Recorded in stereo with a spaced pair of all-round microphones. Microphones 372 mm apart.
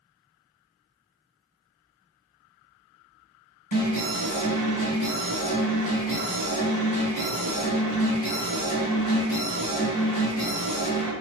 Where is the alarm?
60° left (ahead or behind), 1.5 m.